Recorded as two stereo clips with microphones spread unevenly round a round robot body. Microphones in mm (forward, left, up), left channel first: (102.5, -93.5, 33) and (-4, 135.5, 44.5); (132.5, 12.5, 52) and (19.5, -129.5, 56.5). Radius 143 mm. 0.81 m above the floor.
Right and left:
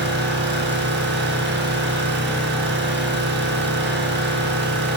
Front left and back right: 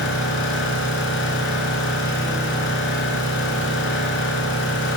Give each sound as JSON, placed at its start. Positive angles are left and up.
{"t": 0.0, "sound": "an engine running", "azimuth_deg": 70, "distance_m": 6.5}